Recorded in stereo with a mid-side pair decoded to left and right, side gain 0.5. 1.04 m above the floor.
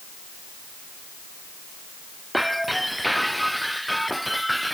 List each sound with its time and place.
2.3 s breaking glass: straight ahead